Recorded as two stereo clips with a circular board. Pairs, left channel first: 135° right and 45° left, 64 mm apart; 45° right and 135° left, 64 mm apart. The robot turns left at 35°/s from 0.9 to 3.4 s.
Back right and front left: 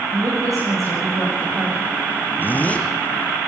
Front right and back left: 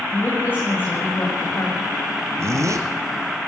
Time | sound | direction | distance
0.1 | a woman speaking | 15° left | 7.5 m
2.4 | a zipper | 170° left | 2 m